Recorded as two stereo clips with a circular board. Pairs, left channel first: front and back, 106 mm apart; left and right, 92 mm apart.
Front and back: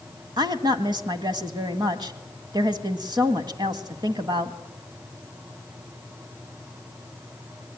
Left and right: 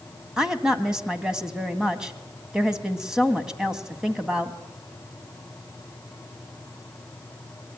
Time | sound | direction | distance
0.4 | a woman speaking | 170° right | 1.8 m